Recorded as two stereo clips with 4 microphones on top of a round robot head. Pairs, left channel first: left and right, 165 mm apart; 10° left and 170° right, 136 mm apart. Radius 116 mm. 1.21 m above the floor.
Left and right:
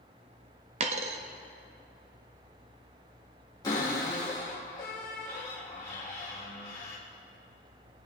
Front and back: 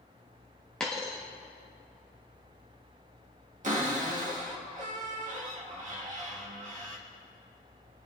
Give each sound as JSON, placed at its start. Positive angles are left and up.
{"t": 0.8, "sound": "a dropped coin", "azimuth_deg": -75, "distance_m": 0.6}
{"t": 3.6, "sound": "a cupboard door", "azimuth_deg": 165, "distance_m": 2.0}